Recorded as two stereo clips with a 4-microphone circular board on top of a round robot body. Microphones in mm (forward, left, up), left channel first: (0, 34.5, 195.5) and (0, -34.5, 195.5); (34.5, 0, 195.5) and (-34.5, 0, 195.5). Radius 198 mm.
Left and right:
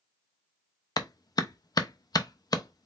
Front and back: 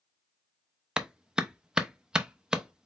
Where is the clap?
100° left, 0.7 m.